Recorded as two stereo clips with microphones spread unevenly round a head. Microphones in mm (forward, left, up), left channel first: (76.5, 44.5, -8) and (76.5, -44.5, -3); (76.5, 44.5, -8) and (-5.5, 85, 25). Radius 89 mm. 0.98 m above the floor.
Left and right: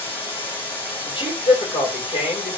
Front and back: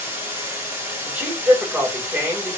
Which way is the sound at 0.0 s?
80° left.